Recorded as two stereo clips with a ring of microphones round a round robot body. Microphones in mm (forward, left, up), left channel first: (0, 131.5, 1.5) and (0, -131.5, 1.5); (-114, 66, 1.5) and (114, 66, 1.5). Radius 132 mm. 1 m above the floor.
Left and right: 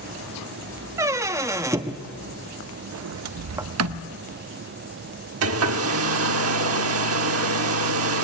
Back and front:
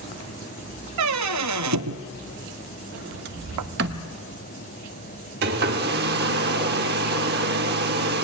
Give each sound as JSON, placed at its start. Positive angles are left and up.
{"t": 1.0, "sound": "a squeak", "azimuth_deg": -10, "distance_m": 0.7}
{"t": 2.9, "sound": "a sliding door", "azimuth_deg": -55, "distance_m": 0.6}
{"t": 5.4, "sound": "a hair dryer", "azimuth_deg": -55, "distance_m": 1.1}